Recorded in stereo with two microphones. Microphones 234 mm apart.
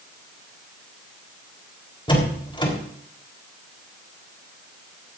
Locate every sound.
2.1 s a door slam: 20° left (ahead or behind), 4 m